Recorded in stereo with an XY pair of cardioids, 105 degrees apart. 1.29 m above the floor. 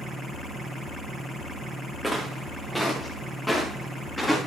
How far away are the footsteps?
About 4.5 m.